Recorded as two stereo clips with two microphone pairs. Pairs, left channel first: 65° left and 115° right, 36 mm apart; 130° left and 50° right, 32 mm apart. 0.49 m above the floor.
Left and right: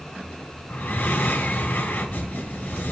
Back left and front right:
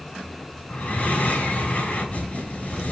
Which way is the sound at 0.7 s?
90° left.